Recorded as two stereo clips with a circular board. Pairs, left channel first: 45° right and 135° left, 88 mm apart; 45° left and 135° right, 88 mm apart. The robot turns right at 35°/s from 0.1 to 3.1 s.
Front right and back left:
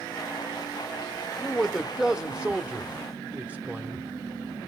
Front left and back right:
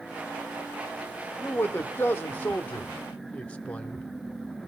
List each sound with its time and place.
1.4 s a man speaking: 35° left, 0.7 m; by 4.0 s 95° left, 0.7 m